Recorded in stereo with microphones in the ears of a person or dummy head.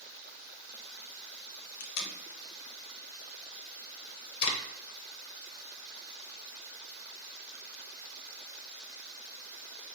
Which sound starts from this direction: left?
Tape being pulled, at 1.8 s.